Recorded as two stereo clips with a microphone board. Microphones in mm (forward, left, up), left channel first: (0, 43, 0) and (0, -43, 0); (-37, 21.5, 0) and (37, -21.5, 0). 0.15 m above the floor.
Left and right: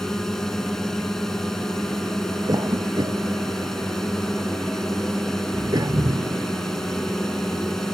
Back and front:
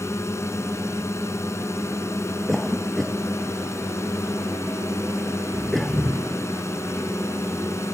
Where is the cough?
120° right.